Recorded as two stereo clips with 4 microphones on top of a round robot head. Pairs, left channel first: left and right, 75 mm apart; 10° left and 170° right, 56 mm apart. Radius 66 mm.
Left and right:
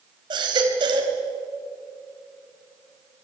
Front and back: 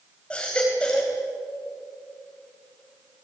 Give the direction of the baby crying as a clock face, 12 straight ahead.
2 o'clock.